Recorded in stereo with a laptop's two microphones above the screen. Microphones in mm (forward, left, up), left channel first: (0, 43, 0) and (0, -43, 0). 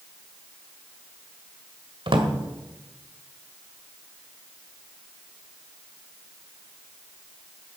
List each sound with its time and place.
2.1 s a drawer: 75° right (ahead or behind), 1.8 m